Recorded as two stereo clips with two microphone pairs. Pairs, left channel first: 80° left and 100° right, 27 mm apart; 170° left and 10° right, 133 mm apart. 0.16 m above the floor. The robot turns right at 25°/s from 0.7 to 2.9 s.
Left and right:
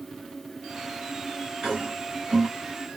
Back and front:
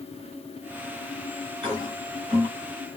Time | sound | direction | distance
1.6 | a toilet flushing | 45° right | 2 m